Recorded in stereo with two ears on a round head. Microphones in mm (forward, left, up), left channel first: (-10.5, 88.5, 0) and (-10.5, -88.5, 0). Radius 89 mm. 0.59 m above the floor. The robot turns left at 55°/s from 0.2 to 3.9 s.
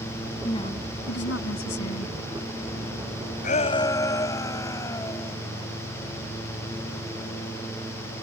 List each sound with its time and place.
0.4 s a woman speaking: 160° left; by 2.1 s 65° left
3.4 s a shout: 40° left (ahead or behind); by 5.3 s 15° left (ahead or behind)